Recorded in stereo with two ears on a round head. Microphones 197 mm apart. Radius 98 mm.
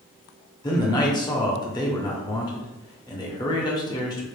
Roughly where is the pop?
No pop in this recording.